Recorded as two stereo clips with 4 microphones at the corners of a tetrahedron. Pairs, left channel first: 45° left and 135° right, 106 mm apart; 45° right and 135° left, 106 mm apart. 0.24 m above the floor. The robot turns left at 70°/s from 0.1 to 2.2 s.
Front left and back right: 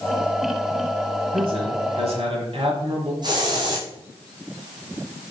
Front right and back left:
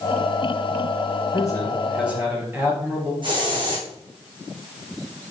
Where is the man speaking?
95° right, 3 m; by 3.1 s 155° right, 3 m.